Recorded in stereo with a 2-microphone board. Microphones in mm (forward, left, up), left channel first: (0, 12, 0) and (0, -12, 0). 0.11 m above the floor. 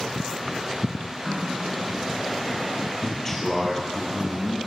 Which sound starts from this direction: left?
A man speaking, at 3.0 s.